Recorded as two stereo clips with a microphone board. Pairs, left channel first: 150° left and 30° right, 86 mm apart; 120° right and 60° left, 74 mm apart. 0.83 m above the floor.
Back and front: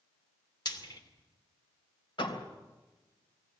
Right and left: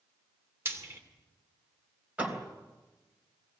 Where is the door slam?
130° left, 3.5 m.